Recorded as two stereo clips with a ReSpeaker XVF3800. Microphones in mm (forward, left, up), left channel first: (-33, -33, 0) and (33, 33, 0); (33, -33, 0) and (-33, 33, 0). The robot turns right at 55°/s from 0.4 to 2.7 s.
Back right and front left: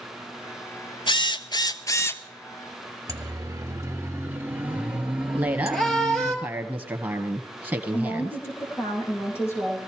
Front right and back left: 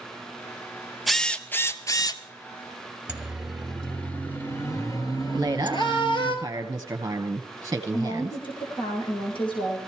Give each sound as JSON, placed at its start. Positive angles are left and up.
{"t": 1.1, "sound": "a drill", "azimuth_deg": -135, "distance_m": 0.7}
{"t": 3.1, "sound": "a siren", "azimuth_deg": 60, "distance_m": 2.0}
{"t": 5.3, "sound": "a woman speaking", "azimuth_deg": 95, "distance_m": 1.4}
{"t": 7.9, "sound": "a woman speaking", "azimuth_deg": -70, "distance_m": 5.0}